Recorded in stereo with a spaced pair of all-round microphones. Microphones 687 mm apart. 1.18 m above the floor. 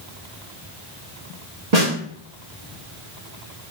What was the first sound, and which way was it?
A snare drum, 65° right (ahead or behind).